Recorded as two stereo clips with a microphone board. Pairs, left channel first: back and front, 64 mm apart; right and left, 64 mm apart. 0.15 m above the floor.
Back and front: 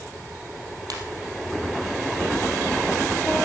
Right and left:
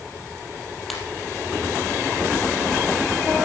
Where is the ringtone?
Straight ahead, 3 m.